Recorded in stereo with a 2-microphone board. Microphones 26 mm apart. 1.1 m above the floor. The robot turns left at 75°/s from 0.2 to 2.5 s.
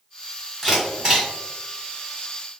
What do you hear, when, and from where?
0.6 s a camera shutter: centre (ahead or behind), 1.7 m; by 1.3 s 45° right (ahead or behind), 1.7 m